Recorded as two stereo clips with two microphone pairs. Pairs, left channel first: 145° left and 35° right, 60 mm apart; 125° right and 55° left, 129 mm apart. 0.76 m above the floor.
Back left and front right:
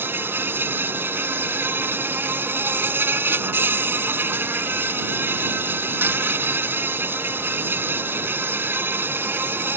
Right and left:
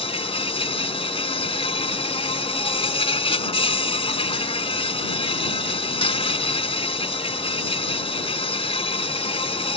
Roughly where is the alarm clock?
I don't hear an alarm clock.